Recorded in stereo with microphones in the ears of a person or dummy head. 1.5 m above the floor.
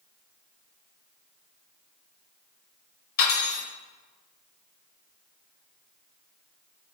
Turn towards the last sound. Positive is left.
turn(degrees=55)  # may be behind; listen again after turning